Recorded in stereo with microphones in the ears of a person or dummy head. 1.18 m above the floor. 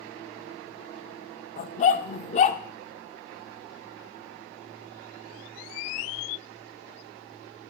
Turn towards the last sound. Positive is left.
turn(degrees=40)  # may be behind; listen again after turning